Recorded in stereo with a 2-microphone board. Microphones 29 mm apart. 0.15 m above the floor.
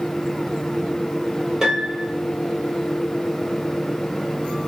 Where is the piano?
20° right (ahead or behind), 2 m.